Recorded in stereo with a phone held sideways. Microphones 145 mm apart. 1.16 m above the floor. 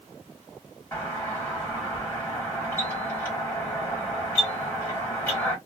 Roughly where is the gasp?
I don't hear a gasp.